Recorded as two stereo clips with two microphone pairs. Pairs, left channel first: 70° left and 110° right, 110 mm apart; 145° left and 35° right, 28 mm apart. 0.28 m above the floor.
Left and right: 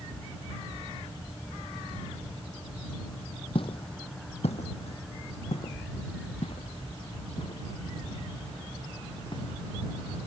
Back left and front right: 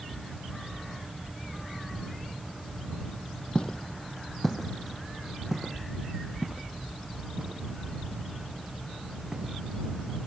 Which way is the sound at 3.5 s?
100° left.